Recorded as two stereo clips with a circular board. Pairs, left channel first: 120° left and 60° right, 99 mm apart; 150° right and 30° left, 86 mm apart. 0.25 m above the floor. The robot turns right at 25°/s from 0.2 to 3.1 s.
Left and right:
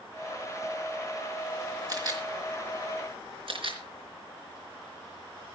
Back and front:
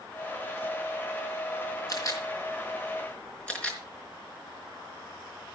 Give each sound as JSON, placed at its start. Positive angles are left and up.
{"t": 1.9, "sound": "a camera shutter", "azimuth_deg": -105, "distance_m": 4.0}